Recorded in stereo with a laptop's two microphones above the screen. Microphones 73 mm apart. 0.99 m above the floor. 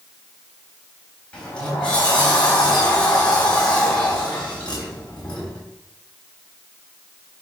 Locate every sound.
1.3 s a sliding door: 15° left (ahead or behind), 3.5 m